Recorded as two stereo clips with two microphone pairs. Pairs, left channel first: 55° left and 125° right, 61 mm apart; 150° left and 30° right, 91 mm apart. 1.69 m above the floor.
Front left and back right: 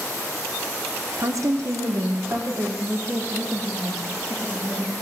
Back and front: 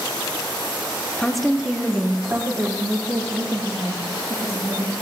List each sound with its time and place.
1.2 s a woman speaking: 130° right, 1.1 m; by 4.9 s 65° right, 3 m